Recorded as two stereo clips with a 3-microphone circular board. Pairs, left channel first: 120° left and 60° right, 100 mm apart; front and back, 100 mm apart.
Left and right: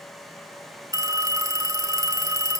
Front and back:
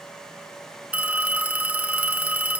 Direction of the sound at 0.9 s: 105° right.